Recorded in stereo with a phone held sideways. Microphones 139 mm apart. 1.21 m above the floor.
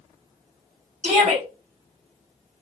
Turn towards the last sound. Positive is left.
turn(degrees=-55)  # may be behind; listen again after turning